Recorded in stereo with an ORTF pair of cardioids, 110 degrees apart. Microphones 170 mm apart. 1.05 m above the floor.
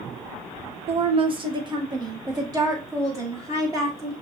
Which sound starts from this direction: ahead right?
A woman speaking, at 0.9 s.